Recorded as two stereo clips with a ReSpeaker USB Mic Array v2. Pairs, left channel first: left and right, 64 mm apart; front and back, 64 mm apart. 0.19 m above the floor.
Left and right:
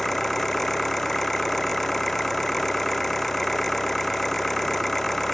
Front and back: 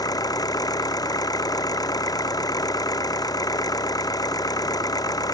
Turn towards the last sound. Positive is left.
turn(degrees=5)